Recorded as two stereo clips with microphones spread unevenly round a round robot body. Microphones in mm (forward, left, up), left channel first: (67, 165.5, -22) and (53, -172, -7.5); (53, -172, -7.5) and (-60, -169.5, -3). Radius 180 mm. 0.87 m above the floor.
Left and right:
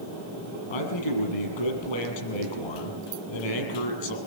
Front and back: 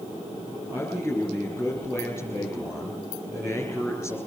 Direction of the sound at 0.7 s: 100° left.